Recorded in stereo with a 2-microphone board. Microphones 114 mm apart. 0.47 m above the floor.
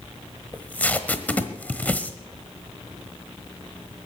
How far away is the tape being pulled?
About 1.1 m.